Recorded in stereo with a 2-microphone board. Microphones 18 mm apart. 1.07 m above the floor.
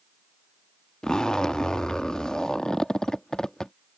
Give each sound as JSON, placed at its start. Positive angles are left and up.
{"t": 1.0, "sound": "a zipper", "side_deg": 40}